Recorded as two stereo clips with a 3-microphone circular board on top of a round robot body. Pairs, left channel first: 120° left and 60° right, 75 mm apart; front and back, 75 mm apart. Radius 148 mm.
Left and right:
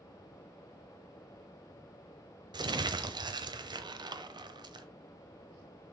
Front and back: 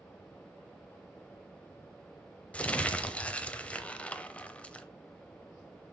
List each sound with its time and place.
2.5 s crumpling: 70° right, 0.9 m